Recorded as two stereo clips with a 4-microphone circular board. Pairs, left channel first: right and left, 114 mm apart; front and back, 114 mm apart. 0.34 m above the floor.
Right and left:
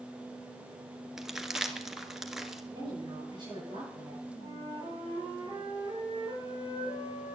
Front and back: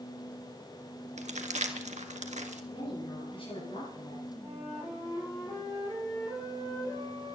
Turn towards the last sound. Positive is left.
turn(degrees=45)